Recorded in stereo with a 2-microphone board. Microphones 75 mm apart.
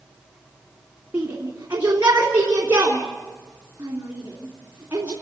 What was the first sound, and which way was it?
A shout, 25° right (ahead or behind).